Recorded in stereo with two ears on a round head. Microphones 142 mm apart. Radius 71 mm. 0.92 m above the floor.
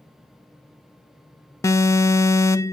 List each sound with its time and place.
1.6 s an alarm: 20° left (ahead or behind), 0.5 m